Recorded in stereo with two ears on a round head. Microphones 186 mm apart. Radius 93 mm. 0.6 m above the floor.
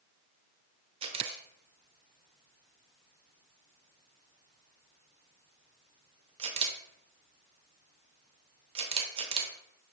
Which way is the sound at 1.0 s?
25° right (ahead or behind).